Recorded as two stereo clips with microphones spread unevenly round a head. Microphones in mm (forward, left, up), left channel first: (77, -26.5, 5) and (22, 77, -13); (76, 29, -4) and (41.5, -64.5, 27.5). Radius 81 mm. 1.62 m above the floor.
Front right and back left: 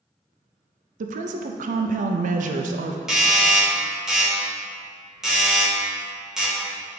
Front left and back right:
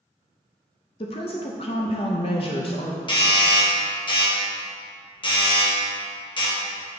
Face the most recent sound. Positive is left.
turn(degrees=30)